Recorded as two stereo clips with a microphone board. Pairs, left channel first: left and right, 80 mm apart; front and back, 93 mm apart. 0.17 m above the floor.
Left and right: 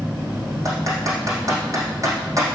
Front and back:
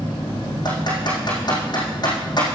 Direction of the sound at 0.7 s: 40° right.